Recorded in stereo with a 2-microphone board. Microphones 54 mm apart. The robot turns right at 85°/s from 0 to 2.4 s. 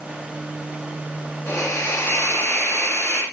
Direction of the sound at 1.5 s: 45° left.